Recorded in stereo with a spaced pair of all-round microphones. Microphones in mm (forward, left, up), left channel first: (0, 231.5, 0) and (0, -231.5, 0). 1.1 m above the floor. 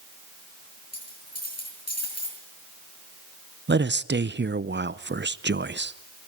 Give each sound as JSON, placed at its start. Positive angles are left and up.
{"t": 0.9, "sound": "a dropped coin", "side_deg": 30, "distance_m": 7.5}
{"t": 3.7, "sound": "a man speaking", "side_deg": -25, "distance_m": 0.6}